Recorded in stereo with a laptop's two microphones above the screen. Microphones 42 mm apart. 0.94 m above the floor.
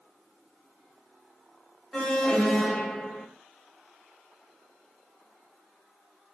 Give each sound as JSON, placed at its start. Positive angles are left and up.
{"t": 1.9, "sound": "an alarm", "side_deg": 10, "distance_m": 2.5}